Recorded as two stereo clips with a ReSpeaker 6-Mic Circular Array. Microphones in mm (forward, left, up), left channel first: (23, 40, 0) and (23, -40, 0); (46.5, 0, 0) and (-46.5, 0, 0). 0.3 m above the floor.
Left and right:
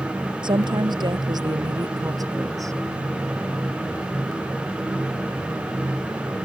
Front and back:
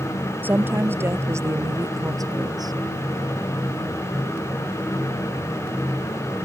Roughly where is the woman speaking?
Right.